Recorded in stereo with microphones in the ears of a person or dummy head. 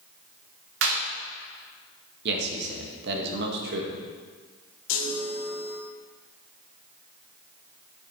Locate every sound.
0.8 s a clap: 75° right (ahead or behind), 2.5 m
2.2 s a man speaking: 60° right (ahead or behind), 2 m
4.9 s a chime: 70° left (ahead or behind), 2 m